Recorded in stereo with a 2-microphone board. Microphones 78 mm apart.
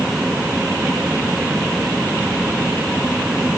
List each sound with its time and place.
Only background noise.